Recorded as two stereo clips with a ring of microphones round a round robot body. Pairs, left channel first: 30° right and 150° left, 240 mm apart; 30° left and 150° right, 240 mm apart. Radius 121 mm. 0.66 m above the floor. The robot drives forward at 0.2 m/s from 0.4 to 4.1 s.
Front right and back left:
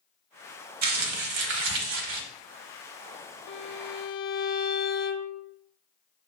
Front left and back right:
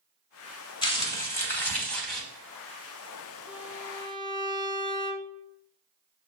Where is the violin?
65° right, 0.5 m; by 5.4 s 80° right, 0.5 m.